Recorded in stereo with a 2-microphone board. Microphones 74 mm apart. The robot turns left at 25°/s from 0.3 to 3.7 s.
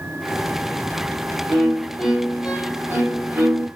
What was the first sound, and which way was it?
A violin, 10° left.